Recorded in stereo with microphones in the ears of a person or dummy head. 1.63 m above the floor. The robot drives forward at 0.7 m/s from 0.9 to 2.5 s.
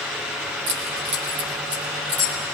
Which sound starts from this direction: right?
Keys jangling, at 0.7 s.